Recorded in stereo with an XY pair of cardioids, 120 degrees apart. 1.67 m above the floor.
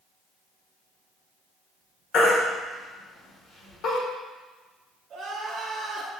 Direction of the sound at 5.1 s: 55° right.